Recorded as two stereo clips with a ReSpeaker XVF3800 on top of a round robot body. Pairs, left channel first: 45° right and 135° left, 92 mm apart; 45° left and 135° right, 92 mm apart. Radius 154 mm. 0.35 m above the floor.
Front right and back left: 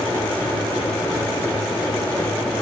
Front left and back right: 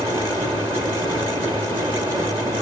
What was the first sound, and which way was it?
Only background noise.